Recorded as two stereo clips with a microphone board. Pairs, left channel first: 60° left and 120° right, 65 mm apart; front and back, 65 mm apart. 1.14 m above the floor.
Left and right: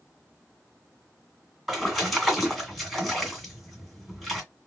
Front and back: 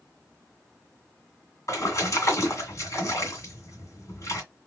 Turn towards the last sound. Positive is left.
turn(degrees=-30)